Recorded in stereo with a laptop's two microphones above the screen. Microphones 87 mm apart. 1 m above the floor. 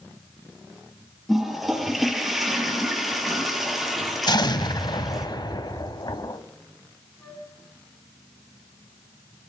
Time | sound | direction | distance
1.3 | a toilet flushing | centre (ahead or behind) | 4.5 m
4.3 | an explosion | 55° left (ahead or behind) | 1.7 m
7.2 | a flute | 20° left (ahead or behind) | 5 m